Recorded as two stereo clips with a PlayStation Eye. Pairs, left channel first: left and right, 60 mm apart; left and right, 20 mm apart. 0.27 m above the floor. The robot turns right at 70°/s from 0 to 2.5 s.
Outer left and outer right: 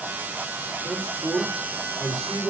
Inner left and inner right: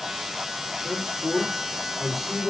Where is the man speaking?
90° right, 4.5 m; by 2.5 s 30° left, 4.5 m.